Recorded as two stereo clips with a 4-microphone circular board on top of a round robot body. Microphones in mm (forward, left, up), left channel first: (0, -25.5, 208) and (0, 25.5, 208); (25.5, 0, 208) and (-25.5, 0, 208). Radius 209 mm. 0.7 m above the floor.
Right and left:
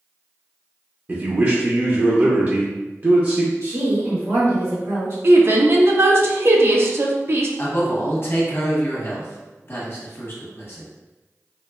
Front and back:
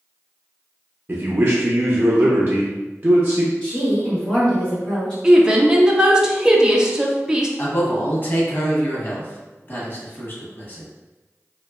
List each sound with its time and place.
1.1 s a man speaking: 130° left, 0.7 m
3.6 s a woman speaking: 75° left, 1.5 m
5.2 s a woman speaking: 105° left, 0.6 m
7.6 s a man speaking: 50° right, 1.0 m